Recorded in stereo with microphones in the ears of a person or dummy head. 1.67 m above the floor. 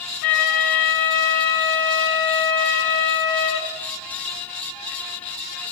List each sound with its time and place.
0.2 s a flute: 50° left (ahead or behind), 1.7 m